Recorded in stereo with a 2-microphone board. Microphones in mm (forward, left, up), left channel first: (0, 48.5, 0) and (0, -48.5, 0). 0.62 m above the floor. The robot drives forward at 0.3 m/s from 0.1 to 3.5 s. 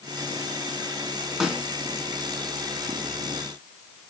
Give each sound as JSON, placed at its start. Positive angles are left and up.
{"t": 1.4, "sound": "a snare drum", "side_deg": -5, "distance_m": 2.5}